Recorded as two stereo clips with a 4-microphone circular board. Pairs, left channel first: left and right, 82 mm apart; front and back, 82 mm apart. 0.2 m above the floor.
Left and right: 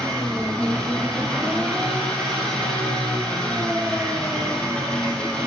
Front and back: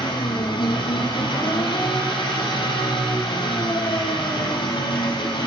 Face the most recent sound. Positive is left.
turn(degrees=10)